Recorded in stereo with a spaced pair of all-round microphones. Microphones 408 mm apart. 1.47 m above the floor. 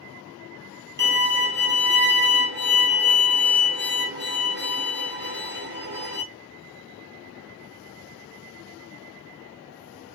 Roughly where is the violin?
Right.